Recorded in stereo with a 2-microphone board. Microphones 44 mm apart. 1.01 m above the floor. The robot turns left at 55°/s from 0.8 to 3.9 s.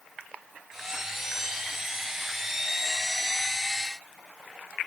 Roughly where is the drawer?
I don't hear a drawer.